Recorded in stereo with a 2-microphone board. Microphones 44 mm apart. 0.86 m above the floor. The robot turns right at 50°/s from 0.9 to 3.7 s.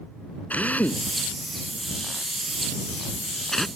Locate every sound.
0.5 s a drill: 35° left (ahead or behind); by 3.7 s 5° left (ahead or behind)